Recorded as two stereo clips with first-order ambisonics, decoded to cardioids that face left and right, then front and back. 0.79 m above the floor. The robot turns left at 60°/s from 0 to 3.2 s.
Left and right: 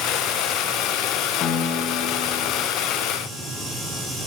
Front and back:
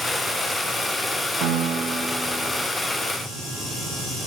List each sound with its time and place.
1.4 s a piano: 150° left, 1.1 m; by 2.6 s 75° left, 1.1 m